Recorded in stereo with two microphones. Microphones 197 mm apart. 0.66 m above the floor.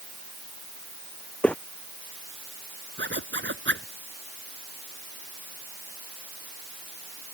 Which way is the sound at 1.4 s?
5° left (ahead or behind).